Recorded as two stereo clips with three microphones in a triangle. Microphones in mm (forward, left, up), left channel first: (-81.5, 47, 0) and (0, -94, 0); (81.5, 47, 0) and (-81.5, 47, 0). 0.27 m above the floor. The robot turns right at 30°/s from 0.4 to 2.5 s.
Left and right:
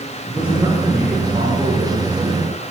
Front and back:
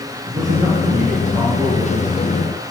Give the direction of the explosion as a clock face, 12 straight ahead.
No explosion in this recording.